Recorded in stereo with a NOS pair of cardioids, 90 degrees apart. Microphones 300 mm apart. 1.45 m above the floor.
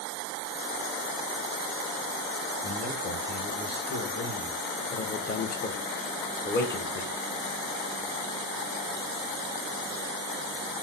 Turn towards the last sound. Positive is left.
turn(degrees=35)